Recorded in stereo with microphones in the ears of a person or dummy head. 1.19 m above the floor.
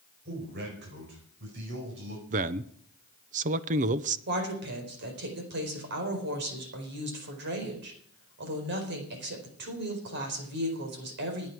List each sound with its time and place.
0.2 s a man speaking: 55° right (ahead or behind), 5 m; by 2.2 s 65° right (ahead or behind), 5.5 m
2.3 s a man speaking: 40° right (ahead or behind), 0.8 m
4.3 s a woman speaking: 60° right (ahead or behind), 4.5 m